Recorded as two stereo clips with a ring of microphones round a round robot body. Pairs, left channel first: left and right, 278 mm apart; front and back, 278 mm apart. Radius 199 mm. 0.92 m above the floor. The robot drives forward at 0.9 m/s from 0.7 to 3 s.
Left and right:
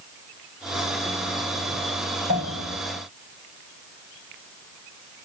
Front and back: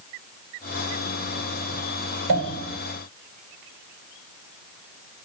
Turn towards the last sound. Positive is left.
turn(degrees=-170)